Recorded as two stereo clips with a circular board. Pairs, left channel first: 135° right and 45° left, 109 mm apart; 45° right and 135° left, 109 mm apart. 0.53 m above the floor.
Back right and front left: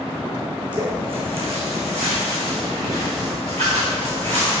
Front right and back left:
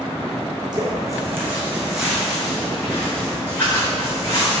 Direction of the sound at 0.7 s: 85° left.